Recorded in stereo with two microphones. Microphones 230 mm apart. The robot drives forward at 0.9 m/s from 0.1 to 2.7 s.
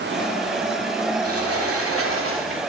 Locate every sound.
1.2 s a sliding door: 85° right, 2.5 m; by 2.6 s 65° right (ahead or behind), 3 m